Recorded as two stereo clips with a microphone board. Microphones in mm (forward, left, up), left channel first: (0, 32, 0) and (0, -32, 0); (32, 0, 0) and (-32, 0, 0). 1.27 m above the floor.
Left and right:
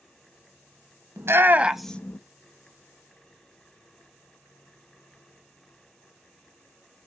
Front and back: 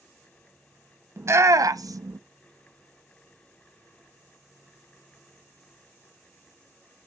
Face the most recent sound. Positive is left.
turn(degrees=135)